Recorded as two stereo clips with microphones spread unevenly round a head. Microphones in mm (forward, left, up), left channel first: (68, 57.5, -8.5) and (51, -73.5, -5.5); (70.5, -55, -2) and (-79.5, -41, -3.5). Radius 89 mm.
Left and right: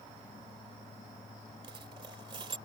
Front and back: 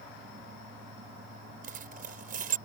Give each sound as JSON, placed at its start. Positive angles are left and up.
{"t": 1.6, "sound": "a dropped coin", "azimuth_deg": -160}